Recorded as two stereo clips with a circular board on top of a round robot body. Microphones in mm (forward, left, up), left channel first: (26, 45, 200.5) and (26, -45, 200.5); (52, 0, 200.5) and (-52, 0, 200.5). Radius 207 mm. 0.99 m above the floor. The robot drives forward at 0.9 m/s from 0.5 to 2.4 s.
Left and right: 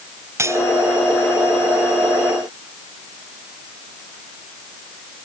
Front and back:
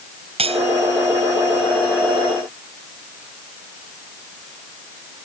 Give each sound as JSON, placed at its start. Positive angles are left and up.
{"t": 0.4, "sound": "cutlery clinking", "azimuth_deg": -150}